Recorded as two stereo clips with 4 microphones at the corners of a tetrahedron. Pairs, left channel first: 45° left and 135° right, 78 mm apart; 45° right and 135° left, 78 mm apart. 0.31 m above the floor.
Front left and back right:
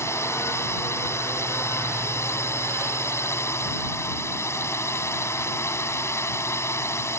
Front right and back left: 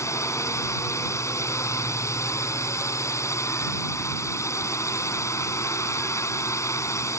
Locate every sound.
0.0 s a drone: straight ahead